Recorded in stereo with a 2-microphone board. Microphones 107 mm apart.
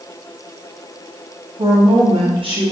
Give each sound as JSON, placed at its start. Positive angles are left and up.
{"t": 1.6, "sound": "a woman speaking", "side_deg": -50, "distance_m": 1.3}